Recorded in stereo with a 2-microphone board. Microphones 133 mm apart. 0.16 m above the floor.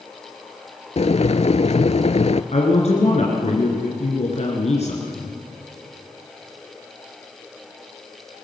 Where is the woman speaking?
55° left (ahead or behind), 3 m.